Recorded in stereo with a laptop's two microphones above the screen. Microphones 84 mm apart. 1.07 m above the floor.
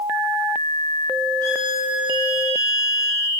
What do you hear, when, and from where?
1.4 s a violin: 30° left (ahead or behind), 1.2 m